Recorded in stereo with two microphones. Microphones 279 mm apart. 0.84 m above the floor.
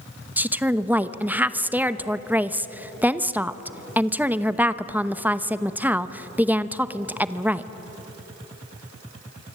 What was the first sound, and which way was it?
A woman speaking, 5° right (ahead or behind).